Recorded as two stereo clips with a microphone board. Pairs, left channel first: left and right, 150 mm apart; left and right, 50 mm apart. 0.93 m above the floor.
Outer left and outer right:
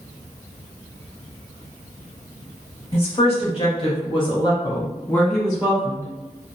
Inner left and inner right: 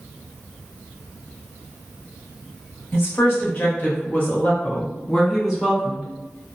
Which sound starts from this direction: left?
A woman speaking, at 2.9 s.